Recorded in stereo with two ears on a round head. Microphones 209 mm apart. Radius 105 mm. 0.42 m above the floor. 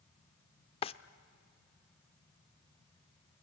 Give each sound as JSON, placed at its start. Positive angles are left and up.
{"t": 0.8, "sound": "a drawer", "side_deg": 25, "distance_m": 0.5}